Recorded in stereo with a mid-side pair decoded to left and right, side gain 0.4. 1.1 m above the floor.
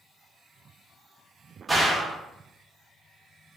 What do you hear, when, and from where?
1.7 s a gunshot: 20° right, 1.3 m